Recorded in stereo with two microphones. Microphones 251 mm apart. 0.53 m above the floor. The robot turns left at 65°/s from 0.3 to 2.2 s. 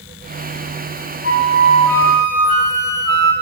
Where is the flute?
35° right, 4.5 m; by 3.3 s 100° right, 4.5 m.